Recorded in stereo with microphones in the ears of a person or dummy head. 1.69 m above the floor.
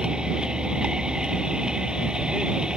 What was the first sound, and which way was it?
A vehicle, 5° right (ahead or behind).